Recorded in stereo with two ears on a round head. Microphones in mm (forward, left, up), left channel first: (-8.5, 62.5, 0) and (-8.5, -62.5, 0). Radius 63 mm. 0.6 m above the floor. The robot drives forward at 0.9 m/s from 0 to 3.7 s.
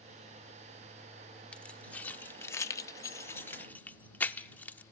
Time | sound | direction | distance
1.5 | keys jangling | 10° left (ahead or behind) | 1.3 m